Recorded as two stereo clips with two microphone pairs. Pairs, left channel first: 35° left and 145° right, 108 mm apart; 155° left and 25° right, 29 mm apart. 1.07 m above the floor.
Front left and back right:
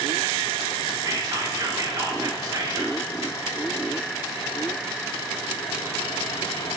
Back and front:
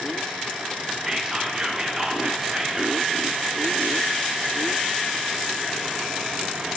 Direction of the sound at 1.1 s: 90° right.